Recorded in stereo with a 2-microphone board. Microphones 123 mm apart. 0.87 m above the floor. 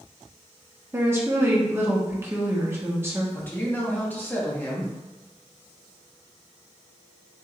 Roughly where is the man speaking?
Centre.